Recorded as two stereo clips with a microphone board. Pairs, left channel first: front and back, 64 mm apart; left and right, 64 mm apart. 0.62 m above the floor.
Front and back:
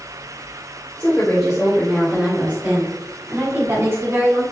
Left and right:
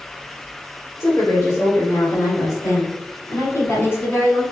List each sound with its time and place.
1.0 s a woman speaking: 70° left, 2.5 m; by 4.4 s 145° left, 4.5 m